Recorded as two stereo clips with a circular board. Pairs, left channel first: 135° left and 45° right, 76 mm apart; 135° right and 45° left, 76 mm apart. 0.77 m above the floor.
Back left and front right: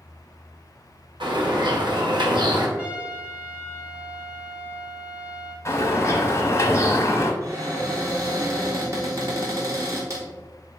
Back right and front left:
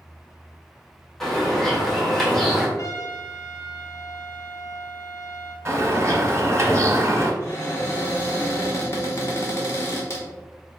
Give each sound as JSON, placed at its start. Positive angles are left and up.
{"t": 1.2, "sound": "a bird", "azimuth_deg": -50, "distance_m": 0.9}
{"t": 2.8, "sound": "a trumpet", "azimuth_deg": -110, "distance_m": 0.8}
{"t": 5.7, "sound": "a bird", "azimuth_deg": 90, "distance_m": 0.9}
{"t": 7.4, "sound": "a cupboard door", "azimuth_deg": -85, "distance_m": 1.3}